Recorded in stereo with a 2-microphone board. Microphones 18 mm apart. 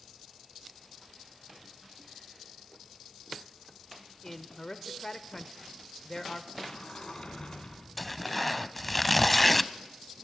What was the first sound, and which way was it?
A man speaking, 20° left (ahead or behind).